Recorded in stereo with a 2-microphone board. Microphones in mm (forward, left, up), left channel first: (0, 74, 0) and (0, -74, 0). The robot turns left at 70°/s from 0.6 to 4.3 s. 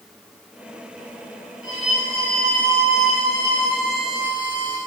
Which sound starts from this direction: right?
A violin, at 1.6 s.